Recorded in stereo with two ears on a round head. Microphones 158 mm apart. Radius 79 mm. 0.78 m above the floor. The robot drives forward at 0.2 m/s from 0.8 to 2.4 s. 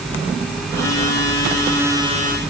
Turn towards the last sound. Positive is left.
No sound to turn to.